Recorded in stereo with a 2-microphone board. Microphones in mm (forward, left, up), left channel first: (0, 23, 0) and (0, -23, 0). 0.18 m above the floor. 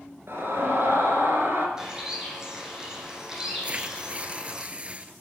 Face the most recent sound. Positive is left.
turn(degrees=-30)  # may be behind; listen again after turning